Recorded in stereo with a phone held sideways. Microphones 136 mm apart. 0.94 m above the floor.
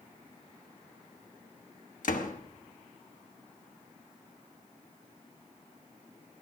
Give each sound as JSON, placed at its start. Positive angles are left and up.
{"t": 2.0, "sound": "a door slam", "side_deg": 75, "distance_m": 1.0}